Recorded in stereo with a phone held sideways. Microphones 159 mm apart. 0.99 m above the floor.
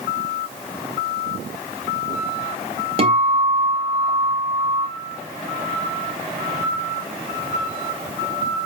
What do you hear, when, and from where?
3.0 s a guitar: 40° right (ahead or behind), 2.5 m